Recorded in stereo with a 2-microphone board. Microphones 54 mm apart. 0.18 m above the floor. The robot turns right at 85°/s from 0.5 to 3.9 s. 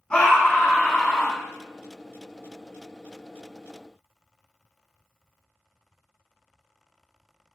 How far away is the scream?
About 1.0 m.